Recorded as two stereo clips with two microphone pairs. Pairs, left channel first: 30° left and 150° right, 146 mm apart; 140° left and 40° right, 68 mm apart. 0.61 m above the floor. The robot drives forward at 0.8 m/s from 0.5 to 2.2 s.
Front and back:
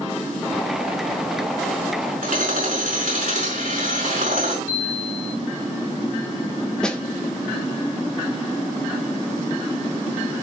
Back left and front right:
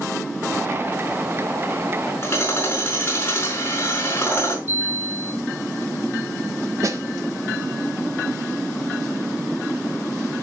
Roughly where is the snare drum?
Ahead right.